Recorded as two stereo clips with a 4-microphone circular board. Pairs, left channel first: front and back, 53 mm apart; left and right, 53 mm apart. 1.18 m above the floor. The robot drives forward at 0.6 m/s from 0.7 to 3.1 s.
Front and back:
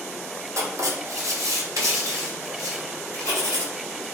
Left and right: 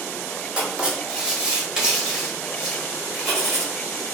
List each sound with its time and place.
0.6 s writing: 160° right, 1.2 m; by 3.6 s 170° right, 2.5 m